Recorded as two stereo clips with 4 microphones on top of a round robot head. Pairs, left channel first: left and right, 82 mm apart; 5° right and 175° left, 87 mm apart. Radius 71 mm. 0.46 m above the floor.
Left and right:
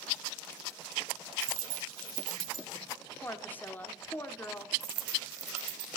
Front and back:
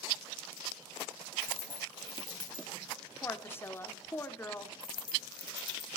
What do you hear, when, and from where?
1.4 s a dropped coin: 75° right, 3 m
3.2 s a woman speaking: 40° left, 1.1 m
4.8 s a dropped coin: 60° right, 0.8 m